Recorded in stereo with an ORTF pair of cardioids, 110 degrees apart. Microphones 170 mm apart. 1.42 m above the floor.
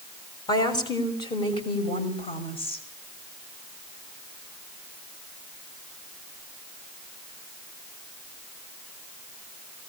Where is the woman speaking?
25° left, 6 m; by 2.8 s 35° left, 6.5 m.